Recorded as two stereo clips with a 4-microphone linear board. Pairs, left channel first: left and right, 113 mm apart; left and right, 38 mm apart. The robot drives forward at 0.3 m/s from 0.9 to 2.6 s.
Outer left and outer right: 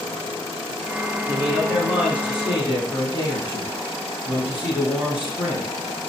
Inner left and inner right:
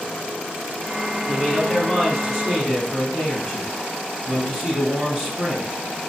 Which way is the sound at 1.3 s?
10° right (ahead or behind).